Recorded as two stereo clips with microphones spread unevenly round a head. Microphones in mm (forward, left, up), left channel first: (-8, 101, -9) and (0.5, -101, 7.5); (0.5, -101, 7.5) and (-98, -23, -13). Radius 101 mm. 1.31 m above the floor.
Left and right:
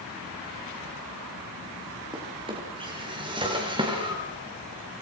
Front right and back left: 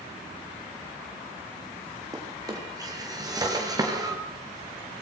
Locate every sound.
2.1 s a drawer: 155° right, 7 m